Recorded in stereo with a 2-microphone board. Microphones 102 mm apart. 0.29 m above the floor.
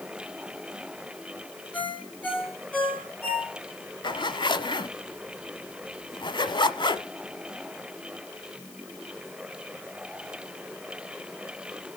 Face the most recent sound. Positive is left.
turn(degrees=50)  # may be behind; listen again after turning